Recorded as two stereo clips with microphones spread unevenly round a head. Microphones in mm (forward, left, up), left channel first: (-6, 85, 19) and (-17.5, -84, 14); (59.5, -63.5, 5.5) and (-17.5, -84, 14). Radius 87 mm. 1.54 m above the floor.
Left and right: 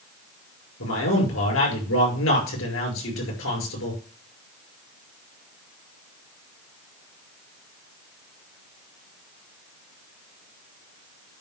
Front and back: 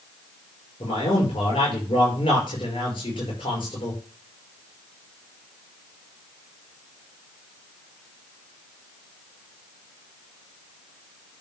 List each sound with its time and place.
0.8 s a man speaking: 75° left, 5.5 m